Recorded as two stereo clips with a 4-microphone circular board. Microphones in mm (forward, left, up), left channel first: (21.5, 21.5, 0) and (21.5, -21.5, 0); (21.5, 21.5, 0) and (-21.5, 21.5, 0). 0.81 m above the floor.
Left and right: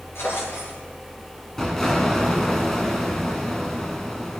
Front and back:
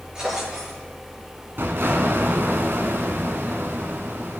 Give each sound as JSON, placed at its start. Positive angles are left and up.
{"t": 0.1, "sound": "a drawer", "azimuth_deg": 110, "distance_m": 7.0}
{"t": 1.6, "sound": "an explosion", "azimuth_deg": 170, "distance_m": 1.4}